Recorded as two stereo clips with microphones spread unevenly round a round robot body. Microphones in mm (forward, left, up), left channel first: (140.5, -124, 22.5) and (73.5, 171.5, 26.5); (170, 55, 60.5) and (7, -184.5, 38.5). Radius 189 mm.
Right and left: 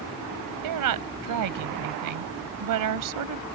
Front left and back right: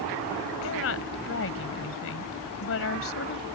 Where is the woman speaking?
105° left.